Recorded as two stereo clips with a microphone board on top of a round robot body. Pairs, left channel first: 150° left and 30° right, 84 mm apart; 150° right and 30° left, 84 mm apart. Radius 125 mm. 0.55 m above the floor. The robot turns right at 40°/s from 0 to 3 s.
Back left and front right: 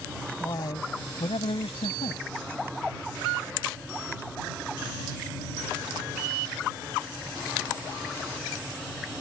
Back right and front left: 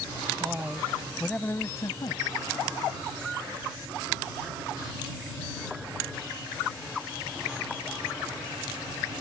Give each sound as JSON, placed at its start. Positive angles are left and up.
{"t": 0.4, "sound": "a man speaking", "azimuth_deg": 100}